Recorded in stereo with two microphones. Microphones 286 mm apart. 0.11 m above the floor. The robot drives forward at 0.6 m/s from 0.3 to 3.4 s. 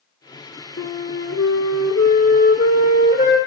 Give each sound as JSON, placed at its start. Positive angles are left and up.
{"t": 0.8, "sound": "a flute", "side_deg": 45, "distance_m": 0.7}